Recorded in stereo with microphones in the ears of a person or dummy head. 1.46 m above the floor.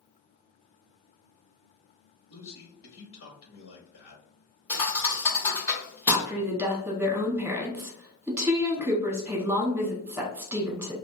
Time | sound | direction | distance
2.3 | a man speaking | 60° left (ahead or behind) | 0.9 m
4.7 | a thud | 20° left (ahead or behind) | 1.2 m
6.1 | a woman speaking | 15° right (ahead or behind) | 1.0 m